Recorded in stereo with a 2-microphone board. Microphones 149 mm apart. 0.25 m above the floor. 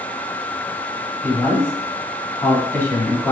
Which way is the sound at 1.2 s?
15° left (ahead or behind).